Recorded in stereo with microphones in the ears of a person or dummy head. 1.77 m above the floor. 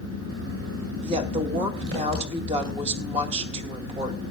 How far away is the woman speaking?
About 2.5 m.